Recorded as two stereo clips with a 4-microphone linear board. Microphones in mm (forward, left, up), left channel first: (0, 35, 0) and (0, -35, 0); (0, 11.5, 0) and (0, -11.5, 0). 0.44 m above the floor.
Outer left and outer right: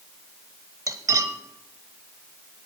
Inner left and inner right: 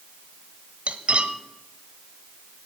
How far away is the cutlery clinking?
About 1.0 m.